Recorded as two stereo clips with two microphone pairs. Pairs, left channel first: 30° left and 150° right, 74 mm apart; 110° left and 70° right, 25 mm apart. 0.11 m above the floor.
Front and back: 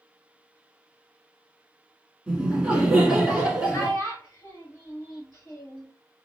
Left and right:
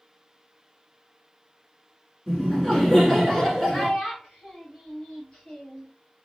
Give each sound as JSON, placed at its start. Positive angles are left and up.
{"t": 2.3, "sound": "laughter", "azimuth_deg": 155, "distance_m": 1.4}
{"t": 3.7, "sound": "a child speaking", "azimuth_deg": 70, "distance_m": 1.9}